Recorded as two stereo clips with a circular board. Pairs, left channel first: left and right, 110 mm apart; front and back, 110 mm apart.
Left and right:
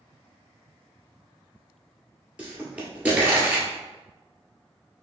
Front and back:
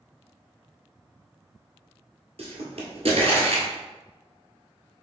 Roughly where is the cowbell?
I don't hear a cowbell.